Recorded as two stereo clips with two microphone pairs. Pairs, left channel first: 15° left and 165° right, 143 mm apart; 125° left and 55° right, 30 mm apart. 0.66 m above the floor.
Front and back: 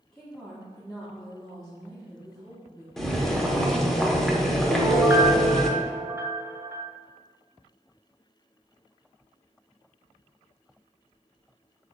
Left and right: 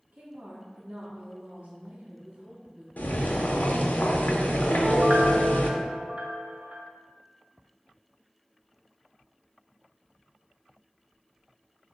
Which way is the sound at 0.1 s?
70° right.